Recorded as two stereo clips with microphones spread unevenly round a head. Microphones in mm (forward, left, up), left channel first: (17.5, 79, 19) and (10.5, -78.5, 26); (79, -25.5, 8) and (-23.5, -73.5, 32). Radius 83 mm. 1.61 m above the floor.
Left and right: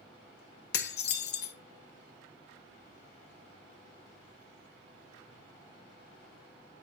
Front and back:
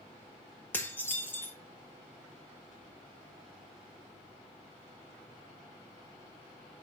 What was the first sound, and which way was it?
Dishes clattering, 110° left.